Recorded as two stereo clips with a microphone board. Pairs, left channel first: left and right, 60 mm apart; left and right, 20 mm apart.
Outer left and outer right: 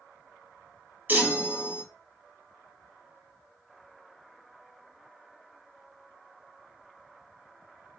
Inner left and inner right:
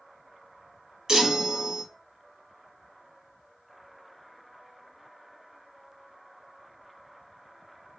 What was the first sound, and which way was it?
A chime, 35° right (ahead or behind).